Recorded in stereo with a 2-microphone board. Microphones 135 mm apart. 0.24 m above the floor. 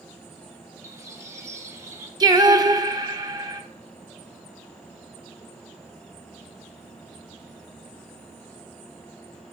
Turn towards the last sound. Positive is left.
turn(degrees=-30)  # may be behind; listen again after turning